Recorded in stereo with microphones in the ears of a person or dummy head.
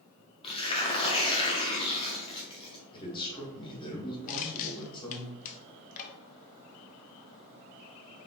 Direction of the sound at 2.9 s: 30° left (ahead or behind).